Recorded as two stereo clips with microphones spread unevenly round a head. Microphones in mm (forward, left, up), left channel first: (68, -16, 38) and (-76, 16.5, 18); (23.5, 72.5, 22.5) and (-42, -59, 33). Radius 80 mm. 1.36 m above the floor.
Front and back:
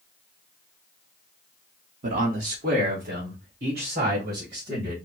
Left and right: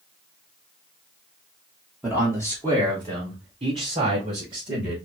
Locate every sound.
2.0 s a man speaking: 160° left, 1.0 m; by 5.0 s 170° right, 3 m